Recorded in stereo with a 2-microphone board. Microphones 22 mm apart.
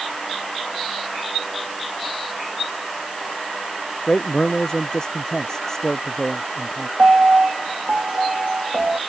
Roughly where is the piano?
Right.